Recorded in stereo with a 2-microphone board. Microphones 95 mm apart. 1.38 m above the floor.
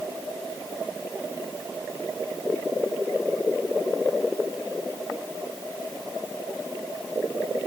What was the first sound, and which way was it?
Only background noise.